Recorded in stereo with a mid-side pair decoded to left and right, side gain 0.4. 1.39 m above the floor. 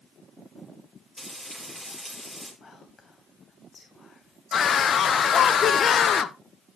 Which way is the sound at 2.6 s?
45° left.